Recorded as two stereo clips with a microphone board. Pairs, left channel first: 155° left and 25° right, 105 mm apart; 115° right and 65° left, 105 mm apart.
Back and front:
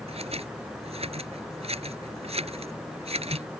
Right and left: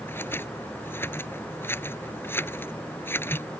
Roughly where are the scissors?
Ahead right.